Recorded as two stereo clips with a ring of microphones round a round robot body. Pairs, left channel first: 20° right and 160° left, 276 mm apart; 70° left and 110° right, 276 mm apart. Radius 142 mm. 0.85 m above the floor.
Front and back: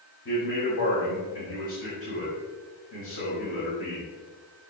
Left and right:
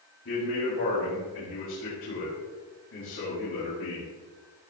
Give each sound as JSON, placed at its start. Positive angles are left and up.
{"t": 0.2, "sound": "a man speaking", "azimuth_deg": 25, "distance_m": 4.5}